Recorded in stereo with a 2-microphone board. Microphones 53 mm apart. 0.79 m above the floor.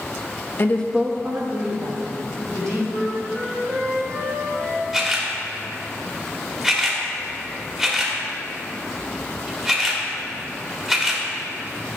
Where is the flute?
50° right (ahead or behind), 2.5 m.